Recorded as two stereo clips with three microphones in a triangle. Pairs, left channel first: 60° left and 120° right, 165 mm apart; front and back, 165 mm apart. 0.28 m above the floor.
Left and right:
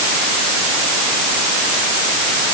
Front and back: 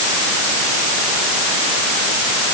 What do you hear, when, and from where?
Only background noise.